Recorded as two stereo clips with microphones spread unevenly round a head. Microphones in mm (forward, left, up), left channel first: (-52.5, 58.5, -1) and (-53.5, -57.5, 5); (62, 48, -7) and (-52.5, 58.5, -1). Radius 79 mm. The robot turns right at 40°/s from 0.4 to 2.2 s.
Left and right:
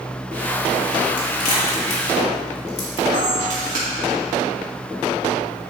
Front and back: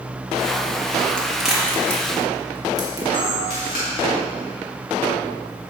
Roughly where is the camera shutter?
Ahead right.